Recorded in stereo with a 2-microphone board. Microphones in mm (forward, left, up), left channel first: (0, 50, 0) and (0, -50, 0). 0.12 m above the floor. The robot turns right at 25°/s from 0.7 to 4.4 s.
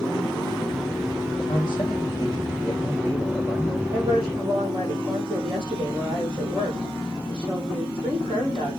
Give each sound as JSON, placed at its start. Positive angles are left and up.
{"t": 1.4, "sound": "a man speaking", "azimuth_deg": 120, "distance_m": 6.0}
{"t": 3.9, "sound": "a woman speaking", "side_deg": -40, "distance_m": 5.5}